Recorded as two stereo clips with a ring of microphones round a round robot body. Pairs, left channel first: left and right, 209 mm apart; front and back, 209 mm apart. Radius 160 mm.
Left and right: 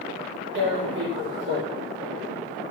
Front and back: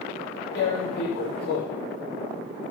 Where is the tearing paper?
60° right, 5 m.